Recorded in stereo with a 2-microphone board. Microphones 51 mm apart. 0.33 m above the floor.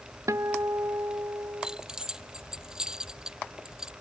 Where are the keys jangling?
15° right (ahead or behind).